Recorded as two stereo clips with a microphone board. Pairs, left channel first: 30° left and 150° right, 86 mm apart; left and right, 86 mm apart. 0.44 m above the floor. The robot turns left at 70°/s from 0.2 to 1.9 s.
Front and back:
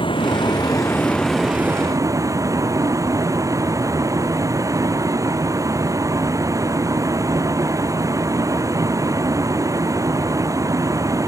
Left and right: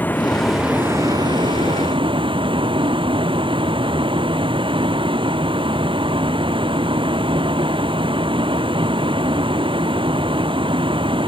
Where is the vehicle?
20° left; by 11.3 s 100° right.